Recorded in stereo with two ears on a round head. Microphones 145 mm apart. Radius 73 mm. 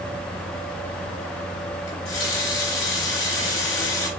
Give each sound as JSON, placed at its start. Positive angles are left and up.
{"t": 1.9, "sound": "a running tap", "side_deg": 80, "distance_m": 4.5}